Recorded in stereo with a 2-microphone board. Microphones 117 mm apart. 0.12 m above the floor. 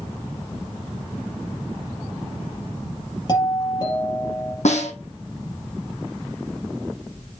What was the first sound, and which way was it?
A doorbell, 35° left (ahead or behind).